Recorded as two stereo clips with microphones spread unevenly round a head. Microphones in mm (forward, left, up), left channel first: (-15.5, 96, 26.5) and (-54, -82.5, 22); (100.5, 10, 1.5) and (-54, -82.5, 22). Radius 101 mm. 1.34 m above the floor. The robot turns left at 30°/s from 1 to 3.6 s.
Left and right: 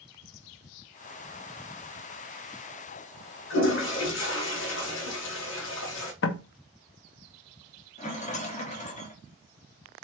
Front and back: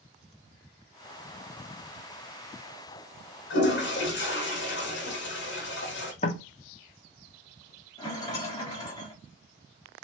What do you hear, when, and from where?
3.5 s a toilet flushing: 60° left, 1.2 m
6.2 s knocking: 90° left, 0.6 m
8.0 s a rattle: 100° left, 1.0 m